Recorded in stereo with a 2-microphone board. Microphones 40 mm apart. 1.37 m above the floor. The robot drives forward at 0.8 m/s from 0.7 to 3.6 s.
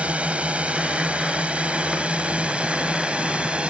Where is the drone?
30° right (ahead or behind).